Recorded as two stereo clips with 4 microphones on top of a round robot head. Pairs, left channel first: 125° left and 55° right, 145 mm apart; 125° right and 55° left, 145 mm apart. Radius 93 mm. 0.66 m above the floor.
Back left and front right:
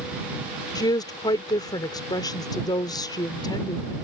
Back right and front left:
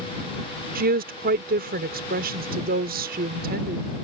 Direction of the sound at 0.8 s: 65° left.